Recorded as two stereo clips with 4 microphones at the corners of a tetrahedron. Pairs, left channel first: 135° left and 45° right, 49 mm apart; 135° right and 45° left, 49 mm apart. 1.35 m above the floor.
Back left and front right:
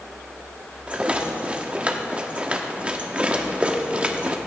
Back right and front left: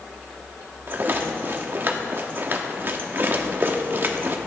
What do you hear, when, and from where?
0.9 s a rattle: 15° left, 1.2 m